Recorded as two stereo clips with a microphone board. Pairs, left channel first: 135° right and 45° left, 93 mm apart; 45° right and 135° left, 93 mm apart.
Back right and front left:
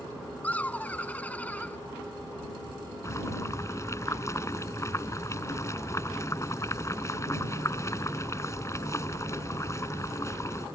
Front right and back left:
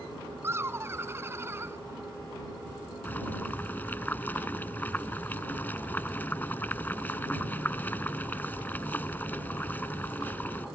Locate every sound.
0.4 s laughter: 165° left
3.0 s boiling: 105° right